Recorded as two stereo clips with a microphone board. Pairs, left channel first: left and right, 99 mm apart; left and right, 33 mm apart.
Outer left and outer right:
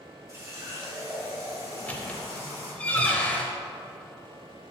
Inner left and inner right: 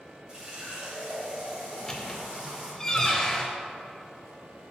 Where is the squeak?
15° left (ahead or behind), 0.8 m.